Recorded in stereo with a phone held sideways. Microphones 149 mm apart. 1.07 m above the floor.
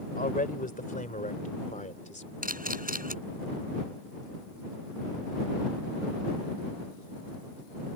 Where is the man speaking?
70° left (ahead or behind); by 2.3 s 55° left (ahead or behind).